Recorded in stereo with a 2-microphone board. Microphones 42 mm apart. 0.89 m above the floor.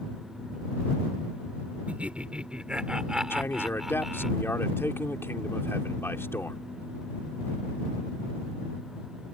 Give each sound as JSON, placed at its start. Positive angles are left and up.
{"t": 1.9, "sound": "laughter", "side_deg": -35}
{"t": 3.3, "sound": "a man speaking", "side_deg": 65}